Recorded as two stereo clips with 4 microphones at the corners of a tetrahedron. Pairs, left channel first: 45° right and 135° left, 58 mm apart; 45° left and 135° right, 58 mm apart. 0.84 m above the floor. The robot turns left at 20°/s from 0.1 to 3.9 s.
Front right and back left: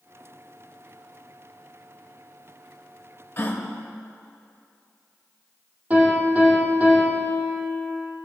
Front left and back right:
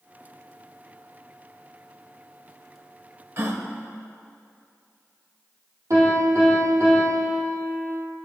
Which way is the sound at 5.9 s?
160° right.